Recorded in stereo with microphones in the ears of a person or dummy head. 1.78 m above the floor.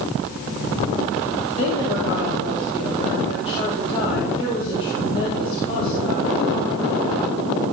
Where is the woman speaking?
30° left (ahead or behind), 4 m.